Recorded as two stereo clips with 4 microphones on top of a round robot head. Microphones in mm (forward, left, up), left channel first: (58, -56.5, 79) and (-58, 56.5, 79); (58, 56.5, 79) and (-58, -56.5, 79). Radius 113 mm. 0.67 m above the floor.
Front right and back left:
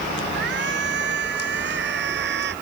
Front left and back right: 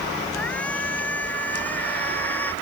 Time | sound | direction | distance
0.3 | a shout | 125° left | ?